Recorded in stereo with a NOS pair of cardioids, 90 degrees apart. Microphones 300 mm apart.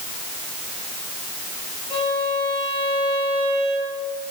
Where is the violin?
20° left, 7.5 m.